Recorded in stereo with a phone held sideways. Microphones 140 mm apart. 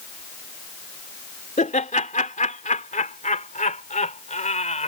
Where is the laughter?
70° left (ahead or behind); by 4.9 s 60° left (ahead or behind).